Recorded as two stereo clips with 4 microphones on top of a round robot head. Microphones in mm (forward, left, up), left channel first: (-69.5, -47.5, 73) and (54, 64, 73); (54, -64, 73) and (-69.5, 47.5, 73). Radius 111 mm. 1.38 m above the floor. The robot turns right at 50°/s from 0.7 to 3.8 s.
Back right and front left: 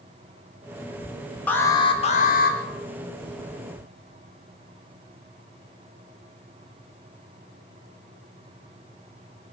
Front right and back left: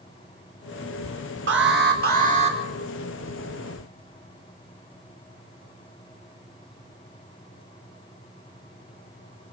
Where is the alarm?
140° left, 4.5 m; by 2.6 s 165° right, 4.5 m.